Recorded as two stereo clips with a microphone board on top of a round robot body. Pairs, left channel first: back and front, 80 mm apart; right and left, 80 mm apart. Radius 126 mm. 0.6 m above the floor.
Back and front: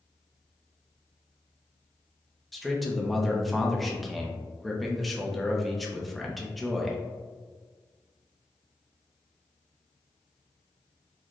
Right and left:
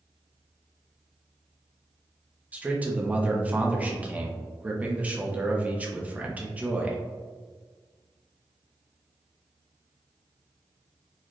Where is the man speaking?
90° left, 0.9 m.